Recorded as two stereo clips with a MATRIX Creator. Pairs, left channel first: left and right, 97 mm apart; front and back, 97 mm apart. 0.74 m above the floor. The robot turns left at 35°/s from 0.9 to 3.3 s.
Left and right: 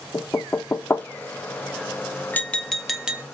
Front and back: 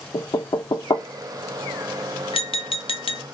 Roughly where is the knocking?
Ahead left.